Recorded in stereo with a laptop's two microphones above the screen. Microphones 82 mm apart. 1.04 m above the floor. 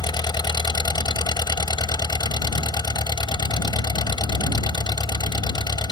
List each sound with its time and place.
0.0 s an engine running: 60° left (ahead or behind)